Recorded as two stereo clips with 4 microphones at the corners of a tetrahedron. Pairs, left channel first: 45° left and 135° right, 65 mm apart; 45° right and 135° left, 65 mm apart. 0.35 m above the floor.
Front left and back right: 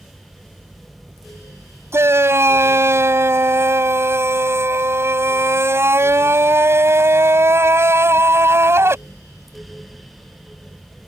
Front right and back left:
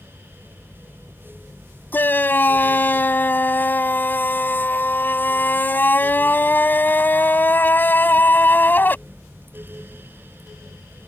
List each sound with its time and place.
1.9 s a shout: 95° right